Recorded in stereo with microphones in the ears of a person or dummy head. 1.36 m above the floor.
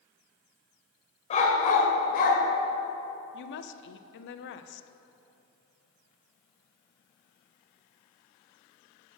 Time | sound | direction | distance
1.3 | a dog barking | 40° left (ahead or behind) | 1.9 m
3.3 | a woman speaking | 65° left (ahead or behind) | 0.7 m